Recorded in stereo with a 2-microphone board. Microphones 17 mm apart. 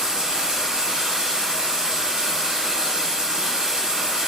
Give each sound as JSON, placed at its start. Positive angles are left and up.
{"t": 0.0, "sound": "running water", "side_deg": -75, "distance_m": 0.8}